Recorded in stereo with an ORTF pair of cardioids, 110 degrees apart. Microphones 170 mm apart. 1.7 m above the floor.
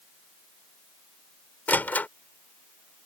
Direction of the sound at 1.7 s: 10° left.